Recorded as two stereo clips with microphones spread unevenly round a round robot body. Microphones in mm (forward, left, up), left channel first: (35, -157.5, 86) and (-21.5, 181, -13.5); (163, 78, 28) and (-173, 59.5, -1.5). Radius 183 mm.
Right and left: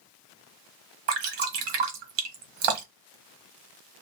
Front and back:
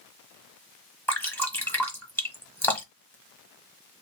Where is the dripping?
85° left, 1.3 m.